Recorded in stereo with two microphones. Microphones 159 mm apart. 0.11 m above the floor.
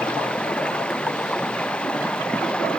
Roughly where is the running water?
Centre.